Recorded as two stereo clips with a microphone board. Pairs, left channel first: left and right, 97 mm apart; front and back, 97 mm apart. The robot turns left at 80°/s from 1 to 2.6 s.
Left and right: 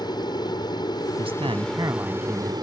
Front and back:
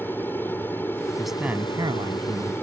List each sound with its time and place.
0.0 s an aircraft: 65° left; by 2.6 s 65° right
1.2 s a man speaking: 85° right; by 2.5 s 165° left